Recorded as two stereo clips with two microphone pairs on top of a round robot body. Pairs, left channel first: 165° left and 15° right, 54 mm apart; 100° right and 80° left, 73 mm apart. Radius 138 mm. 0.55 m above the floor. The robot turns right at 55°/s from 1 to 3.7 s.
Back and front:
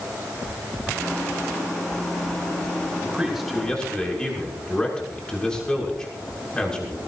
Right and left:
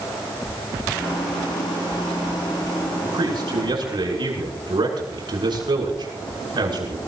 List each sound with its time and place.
3.0 s a man speaking: 55° left, 7 m; by 7.0 s 90° left, 7 m